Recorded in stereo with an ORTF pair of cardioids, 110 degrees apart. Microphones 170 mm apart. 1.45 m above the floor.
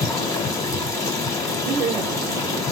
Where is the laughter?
35° right, 1.0 m.